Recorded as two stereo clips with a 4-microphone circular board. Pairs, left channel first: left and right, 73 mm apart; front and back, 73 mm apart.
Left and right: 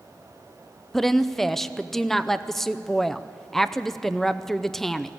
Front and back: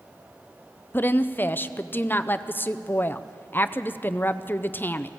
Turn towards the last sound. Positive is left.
turn(degrees=10)